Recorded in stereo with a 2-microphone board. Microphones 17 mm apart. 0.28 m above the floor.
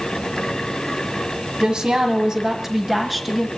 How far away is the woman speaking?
About 1.7 m.